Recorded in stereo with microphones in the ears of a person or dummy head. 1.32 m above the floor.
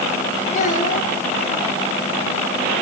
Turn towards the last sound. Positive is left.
turn(degrees=50)  # may be behind; listen again after turning